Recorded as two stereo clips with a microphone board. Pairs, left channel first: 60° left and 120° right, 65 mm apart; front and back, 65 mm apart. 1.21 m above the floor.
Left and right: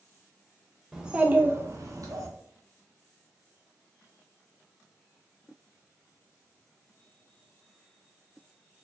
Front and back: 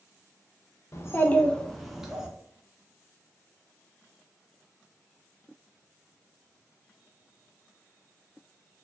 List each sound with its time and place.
0.9 s a child speaking: 35° right, 0.6 m; by 2.3 s 105° right, 0.9 m